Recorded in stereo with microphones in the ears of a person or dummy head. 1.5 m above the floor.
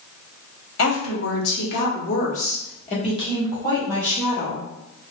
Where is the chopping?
I don't hear chopping.